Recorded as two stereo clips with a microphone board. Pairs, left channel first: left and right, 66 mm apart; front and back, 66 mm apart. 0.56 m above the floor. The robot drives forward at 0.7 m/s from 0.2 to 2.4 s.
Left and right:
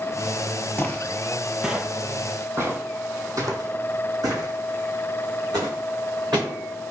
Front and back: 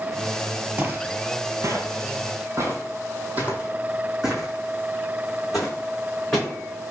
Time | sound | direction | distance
0.8 | footsteps | 125° left | 0.7 m